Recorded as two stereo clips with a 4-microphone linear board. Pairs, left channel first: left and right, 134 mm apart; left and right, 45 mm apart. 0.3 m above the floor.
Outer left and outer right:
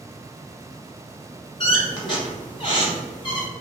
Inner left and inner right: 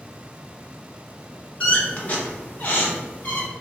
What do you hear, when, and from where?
1.6 s a squeak: 35° left (ahead or behind), 0.8 m